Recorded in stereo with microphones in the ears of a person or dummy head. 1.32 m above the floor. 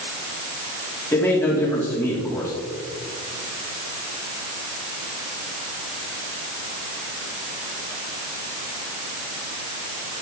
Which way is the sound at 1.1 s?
10° left (ahead or behind).